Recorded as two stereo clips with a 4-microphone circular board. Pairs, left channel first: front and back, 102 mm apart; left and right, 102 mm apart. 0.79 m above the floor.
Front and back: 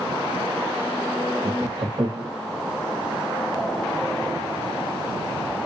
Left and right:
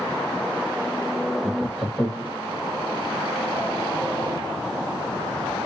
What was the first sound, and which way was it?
Laughter, straight behind.